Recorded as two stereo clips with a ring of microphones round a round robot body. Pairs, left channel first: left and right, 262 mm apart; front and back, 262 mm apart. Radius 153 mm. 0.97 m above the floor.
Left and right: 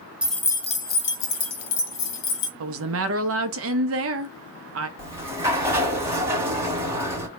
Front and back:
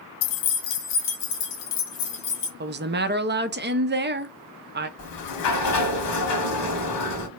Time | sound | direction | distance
0.2 | keys jangling | 5° right | 0.6 m
2.6 | a woman speaking | 130° right | 0.7 m
5.0 | a sliding door | 10° right | 1.3 m